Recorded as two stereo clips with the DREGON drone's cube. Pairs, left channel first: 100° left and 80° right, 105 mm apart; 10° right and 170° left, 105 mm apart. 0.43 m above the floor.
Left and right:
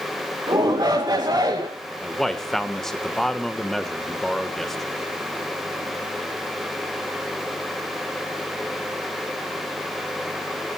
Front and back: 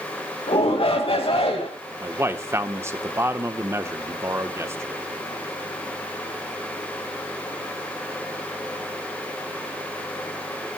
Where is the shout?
30° right, 2.5 m.